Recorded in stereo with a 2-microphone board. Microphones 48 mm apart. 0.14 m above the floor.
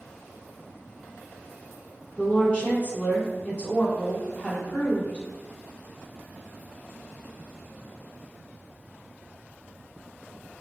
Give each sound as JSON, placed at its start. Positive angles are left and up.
{"t": 2.2, "sound": "a woman speaking", "side_deg": 25, "distance_m": 1.2}